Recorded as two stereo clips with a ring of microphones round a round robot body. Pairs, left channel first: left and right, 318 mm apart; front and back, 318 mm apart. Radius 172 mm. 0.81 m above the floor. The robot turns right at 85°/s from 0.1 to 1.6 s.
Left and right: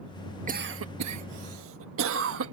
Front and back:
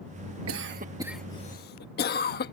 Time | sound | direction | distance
0.5 | a cough | 150° right | ?